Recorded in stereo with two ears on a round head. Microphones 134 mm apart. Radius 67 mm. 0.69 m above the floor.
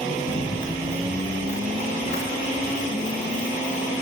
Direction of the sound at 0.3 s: 55° left (ahead or behind).